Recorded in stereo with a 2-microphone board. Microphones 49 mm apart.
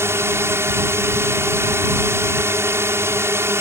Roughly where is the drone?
Right.